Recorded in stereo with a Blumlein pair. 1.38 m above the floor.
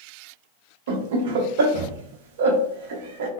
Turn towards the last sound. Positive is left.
turn(degrees=-55)